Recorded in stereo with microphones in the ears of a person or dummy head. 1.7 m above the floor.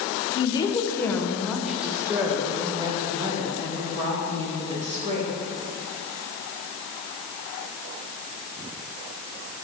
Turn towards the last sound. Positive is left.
turn(degrees=-30)  # may be behind; listen again after turning